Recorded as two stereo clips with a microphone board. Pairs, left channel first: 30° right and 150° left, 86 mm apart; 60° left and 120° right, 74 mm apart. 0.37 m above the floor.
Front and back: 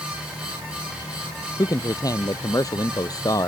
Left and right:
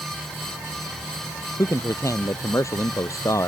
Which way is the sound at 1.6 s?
15° left.